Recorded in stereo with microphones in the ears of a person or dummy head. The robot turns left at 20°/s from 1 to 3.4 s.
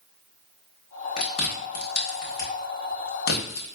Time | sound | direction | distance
1.2 | chewing | 40° left (ahead or behind) | 1.0 m